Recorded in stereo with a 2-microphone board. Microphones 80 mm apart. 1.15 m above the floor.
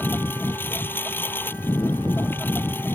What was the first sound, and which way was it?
A lawn mower, 25° left (ahead or behind).